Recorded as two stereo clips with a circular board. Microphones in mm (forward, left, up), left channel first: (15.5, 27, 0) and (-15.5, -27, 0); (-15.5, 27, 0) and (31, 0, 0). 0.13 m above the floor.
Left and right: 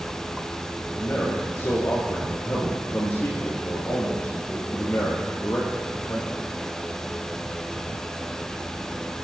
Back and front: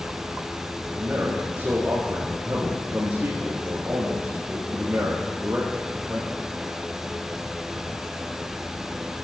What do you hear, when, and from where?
1.0 s a man speaking: 20° left, 3 m